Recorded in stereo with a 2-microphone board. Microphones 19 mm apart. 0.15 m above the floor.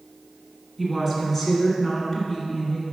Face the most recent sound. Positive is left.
turn(degrees=30)  # may be behind; listen again after turning